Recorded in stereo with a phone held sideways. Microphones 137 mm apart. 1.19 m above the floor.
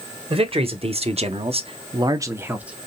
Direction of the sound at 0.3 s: 45° right (ahead or behind).